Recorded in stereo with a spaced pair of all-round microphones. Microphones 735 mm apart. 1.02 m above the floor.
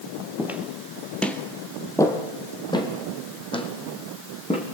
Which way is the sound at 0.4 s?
5° right (ahead or behind).